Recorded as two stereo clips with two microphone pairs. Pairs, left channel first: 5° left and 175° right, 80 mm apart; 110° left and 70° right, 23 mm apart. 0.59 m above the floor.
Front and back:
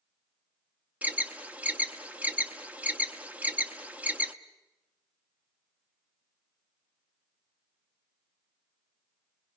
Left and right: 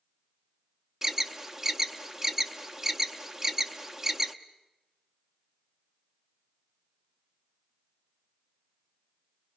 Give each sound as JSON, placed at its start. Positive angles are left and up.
{"t": 1.0, "sound": "an alarm", "azimuth_deg": -130, "distance_m": 0.8}